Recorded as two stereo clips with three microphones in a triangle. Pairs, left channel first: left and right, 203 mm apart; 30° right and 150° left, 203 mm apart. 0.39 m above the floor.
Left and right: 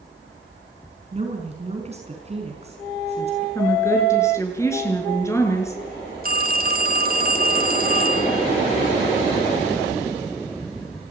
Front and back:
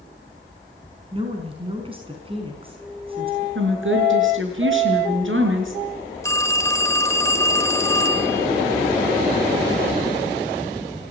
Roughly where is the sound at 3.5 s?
Behind.